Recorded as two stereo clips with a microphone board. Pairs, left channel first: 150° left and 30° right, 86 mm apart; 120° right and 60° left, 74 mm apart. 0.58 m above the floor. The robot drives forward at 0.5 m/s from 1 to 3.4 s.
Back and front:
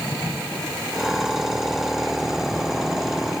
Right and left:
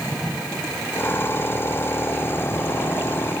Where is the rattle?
No rattle in this recording.